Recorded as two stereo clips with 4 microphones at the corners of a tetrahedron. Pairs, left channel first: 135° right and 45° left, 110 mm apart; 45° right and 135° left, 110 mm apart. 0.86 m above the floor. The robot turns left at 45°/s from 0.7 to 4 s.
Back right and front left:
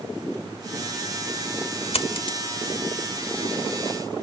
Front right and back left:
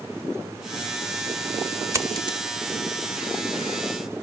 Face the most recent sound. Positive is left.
turn(degrees=105)